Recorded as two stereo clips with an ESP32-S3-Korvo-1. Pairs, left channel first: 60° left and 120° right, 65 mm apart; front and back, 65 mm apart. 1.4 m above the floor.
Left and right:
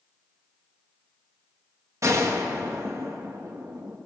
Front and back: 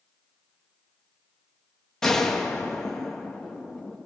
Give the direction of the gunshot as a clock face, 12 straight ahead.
3 o'clock.